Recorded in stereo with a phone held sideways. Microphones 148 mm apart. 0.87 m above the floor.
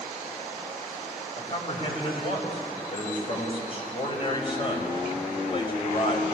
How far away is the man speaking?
About 5 m.